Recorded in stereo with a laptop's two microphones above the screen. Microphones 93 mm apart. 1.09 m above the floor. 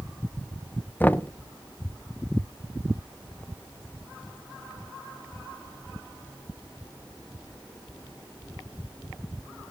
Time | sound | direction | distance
1.0 | knocking | 20° left (ahead or behind) | 0.5 m